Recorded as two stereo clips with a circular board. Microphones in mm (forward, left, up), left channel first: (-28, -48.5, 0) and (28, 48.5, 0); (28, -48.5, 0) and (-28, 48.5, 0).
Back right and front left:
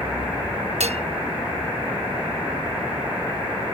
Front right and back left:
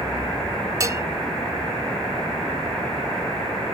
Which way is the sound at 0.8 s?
60° left.